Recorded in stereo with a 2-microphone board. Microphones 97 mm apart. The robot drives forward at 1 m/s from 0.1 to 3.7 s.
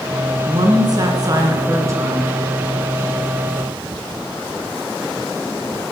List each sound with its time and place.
0.5 s a woman speaking: 45° right (ahead or behind), 1.7 m; by 2.2 s 30° right (ahead or behind), 2.5 m